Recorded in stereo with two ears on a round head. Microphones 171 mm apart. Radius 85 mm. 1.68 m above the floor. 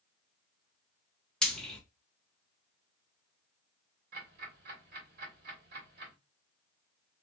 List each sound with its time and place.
1.4 s frying: centre (ahead or behind), 1.4 m
4.1 s ticking: 50° right (ahead or behind), 2.0 m